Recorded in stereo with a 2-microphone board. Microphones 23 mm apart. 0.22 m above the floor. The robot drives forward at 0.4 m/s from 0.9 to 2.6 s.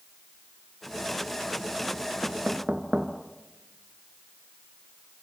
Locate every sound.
2.2 s knocking: 70° right (ahead or behind), 2 m; by 3.1 s 65° right (ahead or behind), 2 m